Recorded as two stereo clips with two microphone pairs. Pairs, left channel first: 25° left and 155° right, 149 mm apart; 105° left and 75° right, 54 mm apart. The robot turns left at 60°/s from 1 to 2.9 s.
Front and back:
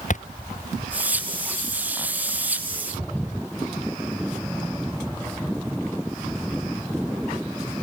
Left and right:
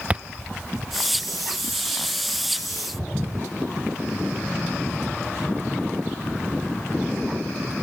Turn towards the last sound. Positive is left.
turn(degrees=-120)